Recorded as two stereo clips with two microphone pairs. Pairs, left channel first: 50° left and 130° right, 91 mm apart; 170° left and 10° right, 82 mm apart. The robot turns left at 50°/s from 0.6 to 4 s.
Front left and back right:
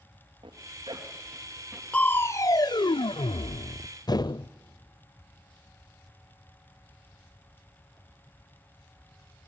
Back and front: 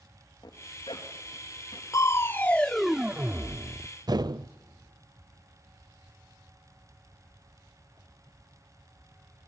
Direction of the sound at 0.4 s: 150° right.